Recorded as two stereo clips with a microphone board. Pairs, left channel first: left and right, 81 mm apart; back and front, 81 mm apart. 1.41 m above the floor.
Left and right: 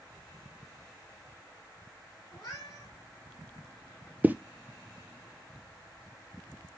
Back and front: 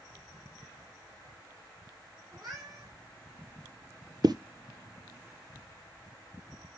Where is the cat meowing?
40° left, 4.5 m.